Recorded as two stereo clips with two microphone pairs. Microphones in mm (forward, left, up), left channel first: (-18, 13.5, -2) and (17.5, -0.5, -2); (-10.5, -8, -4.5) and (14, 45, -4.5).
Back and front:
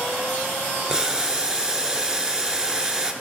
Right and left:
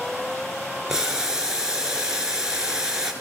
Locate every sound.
0.9 s boiling: 10° left, 0.9 m